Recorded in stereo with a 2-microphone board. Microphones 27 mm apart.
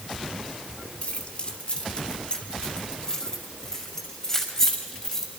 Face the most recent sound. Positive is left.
turn(degrees=25)  # may be behind; listen again after turning